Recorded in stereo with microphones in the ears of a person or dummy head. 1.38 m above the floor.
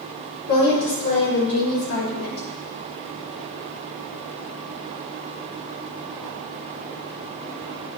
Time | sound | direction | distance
0.5 | a woman speaking | 60° left (ahead or behind) | 3.5 m